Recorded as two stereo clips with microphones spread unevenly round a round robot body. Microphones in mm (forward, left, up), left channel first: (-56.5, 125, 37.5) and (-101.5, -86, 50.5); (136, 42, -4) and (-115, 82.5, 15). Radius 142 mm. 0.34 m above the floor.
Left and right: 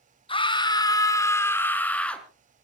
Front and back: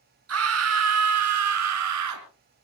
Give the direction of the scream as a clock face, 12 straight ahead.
7 o'clock.